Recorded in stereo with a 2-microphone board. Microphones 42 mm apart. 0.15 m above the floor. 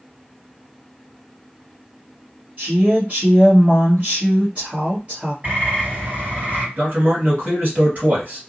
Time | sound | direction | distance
2.6 | a woman speaking | 30° right (ahead or behind) | 1.4 m
5.4 | a bird | 45° right (ahead or behind) | 2 m
6.8 | a man speaking | 45° right (ahead or behind) | 1.5 m